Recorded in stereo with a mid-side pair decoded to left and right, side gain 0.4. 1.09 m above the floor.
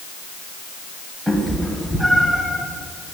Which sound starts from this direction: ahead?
A cat meowing, at 1.3 s.